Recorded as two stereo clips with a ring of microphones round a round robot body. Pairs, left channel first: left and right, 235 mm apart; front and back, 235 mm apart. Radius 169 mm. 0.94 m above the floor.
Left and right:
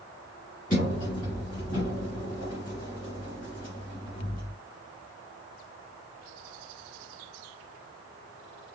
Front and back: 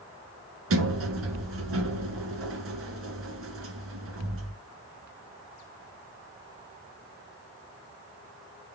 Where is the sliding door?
155° left, 2 m.